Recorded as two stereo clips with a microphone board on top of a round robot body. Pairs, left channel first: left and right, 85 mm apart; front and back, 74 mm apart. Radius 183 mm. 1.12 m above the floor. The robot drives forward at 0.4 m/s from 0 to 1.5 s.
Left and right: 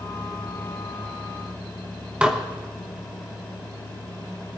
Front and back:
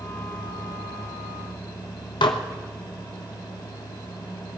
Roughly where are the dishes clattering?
Ahead.